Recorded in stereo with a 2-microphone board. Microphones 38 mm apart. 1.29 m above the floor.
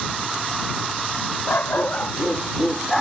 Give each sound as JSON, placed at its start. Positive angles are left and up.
{"t": 1.5, "sound": "a dog barking", "side_deg": 70}